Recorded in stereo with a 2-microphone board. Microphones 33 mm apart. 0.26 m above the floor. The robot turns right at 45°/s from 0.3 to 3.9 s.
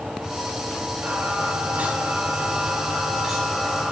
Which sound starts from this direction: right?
Singing, at 1.0 s.